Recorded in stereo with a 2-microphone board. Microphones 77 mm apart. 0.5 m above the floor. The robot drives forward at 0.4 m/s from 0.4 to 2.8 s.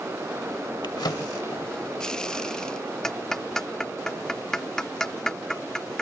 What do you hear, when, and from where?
0.8 s a drawer: 70° left (ahead or behind); by 1.7 s 55° left (ahead or behind)
3.0 s ticking: 5° left (ahead or behind)